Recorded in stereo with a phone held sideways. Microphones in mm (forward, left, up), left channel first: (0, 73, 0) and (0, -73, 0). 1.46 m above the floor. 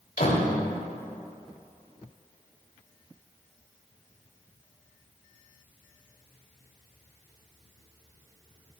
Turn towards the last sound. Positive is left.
turn(degrees=75)  # may be behind; listen again after turning